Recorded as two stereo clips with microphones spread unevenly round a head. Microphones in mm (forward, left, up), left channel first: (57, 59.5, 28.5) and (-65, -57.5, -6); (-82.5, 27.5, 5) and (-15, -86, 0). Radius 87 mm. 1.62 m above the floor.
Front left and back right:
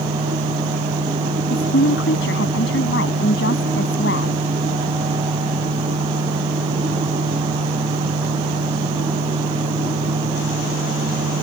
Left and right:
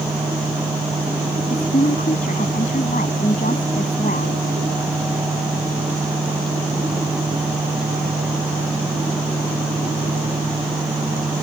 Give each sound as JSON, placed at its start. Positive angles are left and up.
{"t": 1.5, "sound": "a woman speaking", "azimuth_deg": 65}